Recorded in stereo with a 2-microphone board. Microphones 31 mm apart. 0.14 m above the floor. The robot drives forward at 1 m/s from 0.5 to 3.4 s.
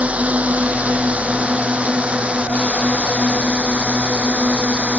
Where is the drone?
50° right (ahead or behind); by 5.0 s 45° right (ahead or behind).